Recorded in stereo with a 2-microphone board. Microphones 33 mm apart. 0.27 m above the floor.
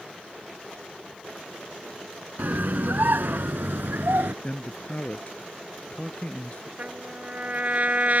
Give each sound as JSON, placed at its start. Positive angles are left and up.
{"t": 2.4, "sound": "a scream", "side_deg": -60}
{"t": 4.4, "sound": "a man speaking", "side_deg": 40}
{"t": 6.8, "sound": "a trumpet", "side_deg": -50}